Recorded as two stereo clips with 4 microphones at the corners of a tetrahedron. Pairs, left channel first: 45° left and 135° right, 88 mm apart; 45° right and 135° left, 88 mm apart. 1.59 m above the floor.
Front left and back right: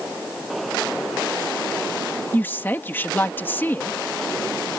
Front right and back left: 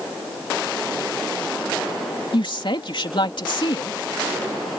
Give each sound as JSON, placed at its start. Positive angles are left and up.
{"t": 2.3, "sound": "a woman speaking", "azimuth_deg": -20}